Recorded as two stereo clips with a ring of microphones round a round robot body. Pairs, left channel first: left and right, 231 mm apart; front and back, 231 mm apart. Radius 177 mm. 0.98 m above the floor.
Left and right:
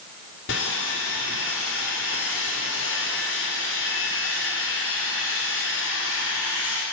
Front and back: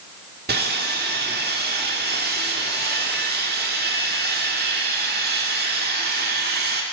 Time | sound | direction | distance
0.5 | sawing | 135° left | 2.5 m